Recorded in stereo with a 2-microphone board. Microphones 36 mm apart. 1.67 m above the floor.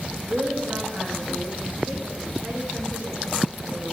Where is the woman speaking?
60° right (ahead or behind), 2.5 m.